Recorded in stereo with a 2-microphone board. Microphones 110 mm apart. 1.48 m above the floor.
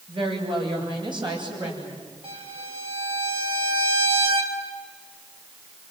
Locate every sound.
0.1 s a woman speaking: 45° right (ahead or behind), 9 m; by 2.0 s 40° right (ahead or behind), 10 m
2.2 s a violin: 55° right (ahead or behind), 4 m